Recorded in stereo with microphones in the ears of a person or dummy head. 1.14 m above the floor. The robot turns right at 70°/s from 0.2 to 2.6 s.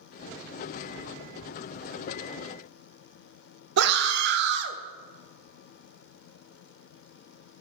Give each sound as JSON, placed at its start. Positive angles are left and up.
{"t": 3.8, "sound": "a scream", "side_deg": -60, "distance_m": 0.5}